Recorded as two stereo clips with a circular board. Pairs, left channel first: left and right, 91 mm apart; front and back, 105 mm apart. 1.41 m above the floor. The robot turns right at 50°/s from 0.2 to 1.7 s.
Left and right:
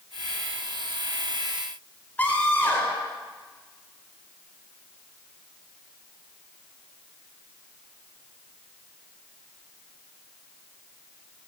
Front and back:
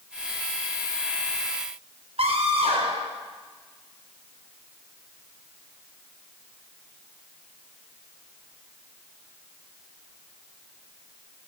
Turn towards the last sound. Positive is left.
turn(degrees=160)